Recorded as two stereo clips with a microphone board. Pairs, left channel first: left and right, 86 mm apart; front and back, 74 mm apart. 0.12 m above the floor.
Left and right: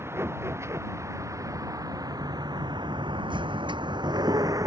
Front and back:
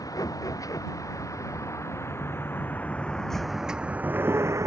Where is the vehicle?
30° right; by 4.7 s 135° right.